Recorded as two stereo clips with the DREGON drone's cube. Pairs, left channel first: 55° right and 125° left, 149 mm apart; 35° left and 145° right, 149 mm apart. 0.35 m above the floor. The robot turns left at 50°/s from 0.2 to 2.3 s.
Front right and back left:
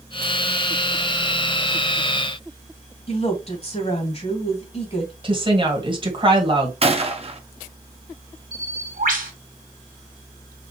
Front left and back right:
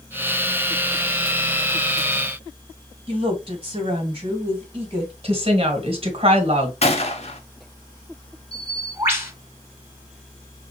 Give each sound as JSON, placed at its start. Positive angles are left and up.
{"t": 3.1, "sound": "a woman speaking", "azimuth_deg": -95, "distance_m": 2.5}
{"t": 5.2, "sound": "a woman speaking", "azimuth_deg": 175, "distance_m": 1.7}
{"t": 6.8, "sound": "a gunshot", "azimuth_deg": 80, "distance_m": 0.8}
{"t": 8.5, "sound": "a bird", "azimuth_deg": 145, "distance_m": 1.9}